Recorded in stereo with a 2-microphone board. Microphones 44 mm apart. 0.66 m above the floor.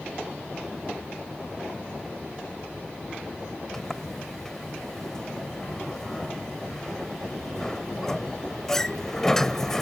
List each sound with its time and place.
3.7 s a sliding door: 10° left (ahead or behind)